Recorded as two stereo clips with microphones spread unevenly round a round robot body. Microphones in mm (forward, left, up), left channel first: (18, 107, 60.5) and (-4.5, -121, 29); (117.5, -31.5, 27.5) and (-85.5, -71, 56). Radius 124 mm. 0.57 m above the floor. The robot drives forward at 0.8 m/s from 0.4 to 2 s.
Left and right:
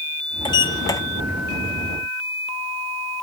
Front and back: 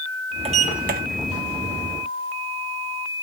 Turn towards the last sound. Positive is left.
turn(degrees=170)